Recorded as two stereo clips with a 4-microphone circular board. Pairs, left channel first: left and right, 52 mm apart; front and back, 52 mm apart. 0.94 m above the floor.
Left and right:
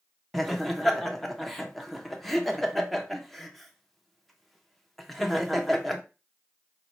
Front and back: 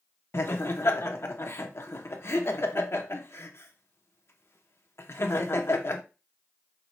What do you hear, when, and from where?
0.3 s laughter: 5° left, 0.7 m